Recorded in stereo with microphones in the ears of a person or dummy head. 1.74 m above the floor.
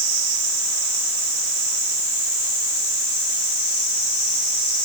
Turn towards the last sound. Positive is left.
No sound to turn to.